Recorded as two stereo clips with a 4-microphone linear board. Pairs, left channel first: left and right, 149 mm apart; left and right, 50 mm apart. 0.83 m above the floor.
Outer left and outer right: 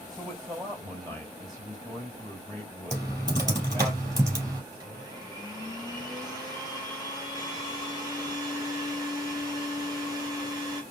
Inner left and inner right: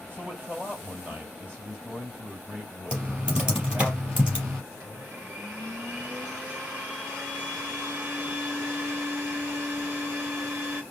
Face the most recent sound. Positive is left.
turn(degrees=-25)  # may be behind; listen again after turning